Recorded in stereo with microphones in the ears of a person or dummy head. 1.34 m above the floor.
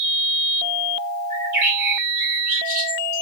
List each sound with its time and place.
1.3 s a bird: 40° right (ahead or behind), 1.6 m